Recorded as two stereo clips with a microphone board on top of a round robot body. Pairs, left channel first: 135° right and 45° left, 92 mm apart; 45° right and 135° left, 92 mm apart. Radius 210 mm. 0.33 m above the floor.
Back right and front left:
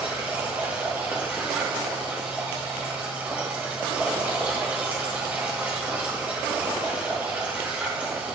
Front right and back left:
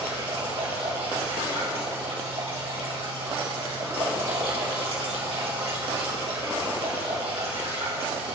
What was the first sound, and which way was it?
Running water, 115° left.